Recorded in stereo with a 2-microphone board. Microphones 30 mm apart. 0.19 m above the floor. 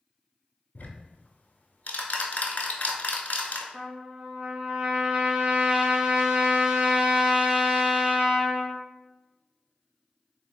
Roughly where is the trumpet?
Right.